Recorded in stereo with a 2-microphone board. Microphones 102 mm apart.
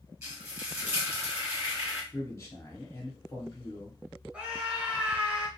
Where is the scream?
10° right (ahead or behind), 1.1 m.